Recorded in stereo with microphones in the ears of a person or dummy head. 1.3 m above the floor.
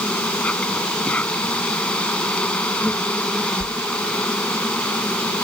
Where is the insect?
10° left (ahead or behind).